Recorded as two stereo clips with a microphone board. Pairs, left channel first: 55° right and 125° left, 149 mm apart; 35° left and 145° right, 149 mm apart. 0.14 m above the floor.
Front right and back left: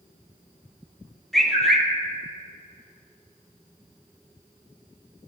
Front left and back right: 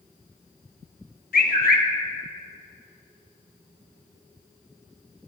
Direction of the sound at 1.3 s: 35° left.